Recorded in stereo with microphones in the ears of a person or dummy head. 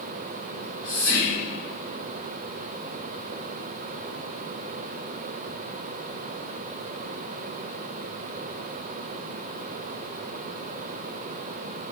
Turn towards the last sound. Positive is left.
turn(degrees=15)  # may be behind; listen again after turning